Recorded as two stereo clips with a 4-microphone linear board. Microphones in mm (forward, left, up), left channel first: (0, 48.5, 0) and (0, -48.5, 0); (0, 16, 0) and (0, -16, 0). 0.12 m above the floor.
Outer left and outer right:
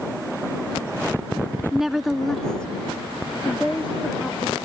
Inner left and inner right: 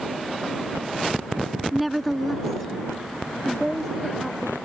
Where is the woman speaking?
5° right (ahead or behind); by 4.6 s 15° left (ahead or behind).